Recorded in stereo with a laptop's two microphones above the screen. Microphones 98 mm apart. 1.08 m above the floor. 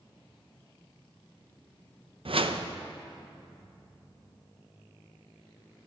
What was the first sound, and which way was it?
A whoosh, 65° right (ahead or behind).